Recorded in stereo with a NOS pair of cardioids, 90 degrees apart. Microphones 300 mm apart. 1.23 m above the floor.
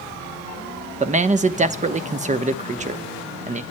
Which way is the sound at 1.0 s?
25° right.